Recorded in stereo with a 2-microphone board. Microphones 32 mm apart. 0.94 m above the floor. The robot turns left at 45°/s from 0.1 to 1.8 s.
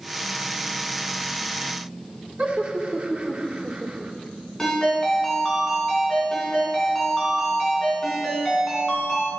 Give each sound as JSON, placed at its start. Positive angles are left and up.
{"t": 2.4, "sound": "laughter", "side_deg": -55, "distance_m": 1.9}
{"t": 4.6, "sound": "a ringtone", "side_deg": 10, "distance_m": 3.5}